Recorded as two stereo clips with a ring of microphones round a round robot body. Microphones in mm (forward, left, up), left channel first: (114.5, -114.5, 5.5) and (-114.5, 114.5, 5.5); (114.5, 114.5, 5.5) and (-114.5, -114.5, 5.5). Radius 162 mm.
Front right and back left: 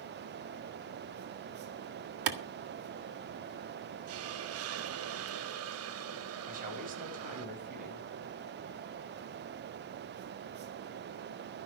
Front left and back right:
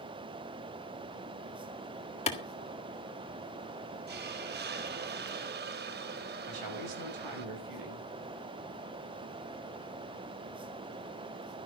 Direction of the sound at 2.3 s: 115° left.